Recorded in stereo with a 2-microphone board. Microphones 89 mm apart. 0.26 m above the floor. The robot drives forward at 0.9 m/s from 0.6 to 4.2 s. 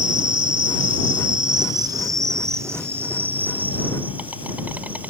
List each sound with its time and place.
0.0 s an insect: 65° right (ahead or behind); by 5.1 s 20° right (ahead or behind)